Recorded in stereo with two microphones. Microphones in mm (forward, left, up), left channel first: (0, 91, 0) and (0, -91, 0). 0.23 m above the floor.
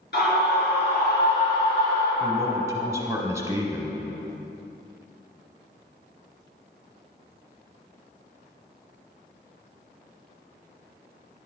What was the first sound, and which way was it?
A scream, 65° left (ahead or behind).